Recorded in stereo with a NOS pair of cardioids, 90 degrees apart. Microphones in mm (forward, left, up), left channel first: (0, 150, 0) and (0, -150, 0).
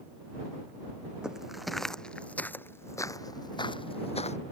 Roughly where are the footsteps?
Ahead.